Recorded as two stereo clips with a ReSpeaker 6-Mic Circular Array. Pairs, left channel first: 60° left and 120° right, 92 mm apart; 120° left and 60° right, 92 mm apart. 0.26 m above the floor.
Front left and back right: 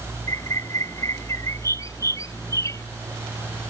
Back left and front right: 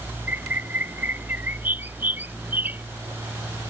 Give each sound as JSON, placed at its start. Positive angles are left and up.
{"t": 0.3, "sound": "a bird", "azimuth_deg": 10}